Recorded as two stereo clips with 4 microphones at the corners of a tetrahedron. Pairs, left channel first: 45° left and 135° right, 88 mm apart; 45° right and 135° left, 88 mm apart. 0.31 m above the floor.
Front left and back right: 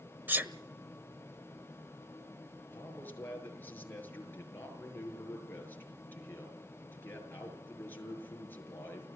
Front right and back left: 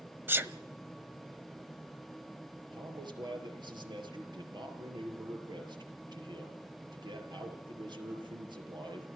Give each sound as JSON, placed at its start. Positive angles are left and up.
{"t": 0.3, "sound": "a sneeze", "azimuth_deg": 175, "distance_m": 1.3}
{"t": 2.7, "sound": "a man speaking", "azimuth_deg": 110, "distance_m": 6.0}